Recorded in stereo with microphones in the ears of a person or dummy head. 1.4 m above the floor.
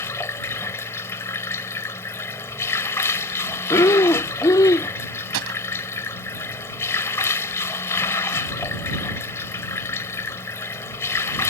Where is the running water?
10° left (ahead or behind).